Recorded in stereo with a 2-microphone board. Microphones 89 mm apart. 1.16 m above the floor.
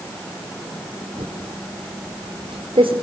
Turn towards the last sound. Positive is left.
turn(degrees=-80)